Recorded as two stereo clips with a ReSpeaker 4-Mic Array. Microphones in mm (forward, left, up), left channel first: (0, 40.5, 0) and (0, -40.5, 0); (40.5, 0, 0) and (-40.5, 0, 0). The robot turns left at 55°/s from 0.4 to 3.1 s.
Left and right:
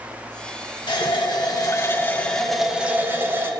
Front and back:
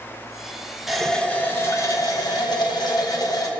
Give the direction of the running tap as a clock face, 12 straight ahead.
9 o'clock.